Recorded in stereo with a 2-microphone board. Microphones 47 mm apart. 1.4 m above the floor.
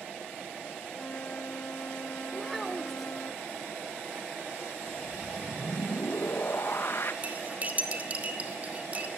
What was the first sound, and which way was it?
A flute, 45° left (ahead or behind).